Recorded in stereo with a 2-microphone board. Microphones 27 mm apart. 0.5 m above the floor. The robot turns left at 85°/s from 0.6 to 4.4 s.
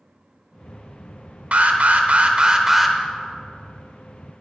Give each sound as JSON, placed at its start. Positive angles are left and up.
{"t": 1.5, "sound": "an alarm", "azimuth_deg": -60, "distance_m": 0.9}